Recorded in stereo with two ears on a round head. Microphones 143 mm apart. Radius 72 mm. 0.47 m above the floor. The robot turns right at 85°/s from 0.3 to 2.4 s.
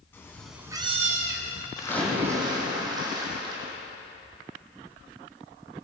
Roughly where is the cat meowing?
Behind.